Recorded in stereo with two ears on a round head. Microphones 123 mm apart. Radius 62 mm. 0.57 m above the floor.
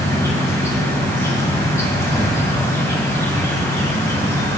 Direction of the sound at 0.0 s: 20° left (ahead or behind).